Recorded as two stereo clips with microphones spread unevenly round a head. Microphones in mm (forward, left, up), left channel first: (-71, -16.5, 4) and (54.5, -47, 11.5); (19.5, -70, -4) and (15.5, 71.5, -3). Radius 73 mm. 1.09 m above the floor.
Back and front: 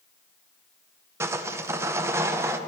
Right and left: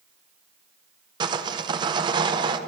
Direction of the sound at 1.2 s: 50° left.